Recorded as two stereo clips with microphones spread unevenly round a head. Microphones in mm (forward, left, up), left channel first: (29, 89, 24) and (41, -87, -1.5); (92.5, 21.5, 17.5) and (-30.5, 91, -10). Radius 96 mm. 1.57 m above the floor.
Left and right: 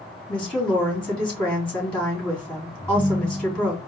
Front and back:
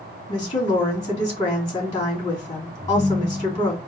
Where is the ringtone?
65° right, 0.8 m.